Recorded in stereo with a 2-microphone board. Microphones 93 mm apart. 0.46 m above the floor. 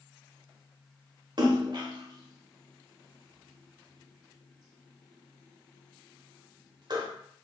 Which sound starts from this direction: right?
A splash, at 1.4 s.